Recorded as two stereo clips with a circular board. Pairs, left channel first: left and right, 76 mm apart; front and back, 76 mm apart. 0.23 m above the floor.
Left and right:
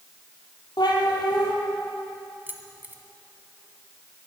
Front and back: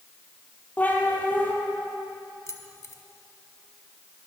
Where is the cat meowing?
70° left, 2.5 m.